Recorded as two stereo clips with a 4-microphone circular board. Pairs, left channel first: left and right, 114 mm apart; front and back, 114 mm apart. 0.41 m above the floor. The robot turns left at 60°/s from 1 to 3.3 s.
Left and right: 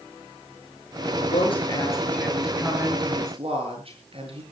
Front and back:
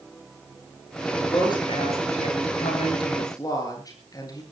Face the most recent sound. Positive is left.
turn(degrees=-60)